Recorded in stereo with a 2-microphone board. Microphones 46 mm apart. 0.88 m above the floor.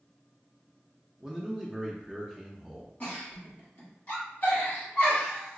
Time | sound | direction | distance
1.2 | a man speaking | 10° right (ahead or behind) | 0.6 m
3.0 | a giggle | 35° left (ahead or behind) | 1.5 m